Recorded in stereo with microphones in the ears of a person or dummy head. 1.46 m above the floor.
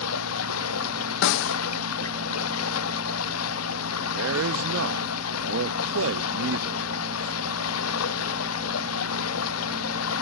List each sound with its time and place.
0.0 s running water: 85° left
1.2 s a snare drum: 65° left (ahead or behind)
4.1 s a man speaking: 65° right (ahead or behind)